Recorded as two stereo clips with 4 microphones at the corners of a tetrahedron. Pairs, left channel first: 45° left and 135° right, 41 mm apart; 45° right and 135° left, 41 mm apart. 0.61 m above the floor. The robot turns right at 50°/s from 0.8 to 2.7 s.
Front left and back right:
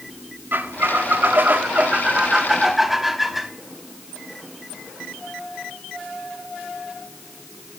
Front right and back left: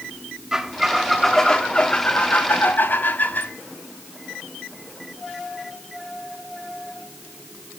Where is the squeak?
150° right, 0.7 m; by 3.5 s 55° right, 0.7 m.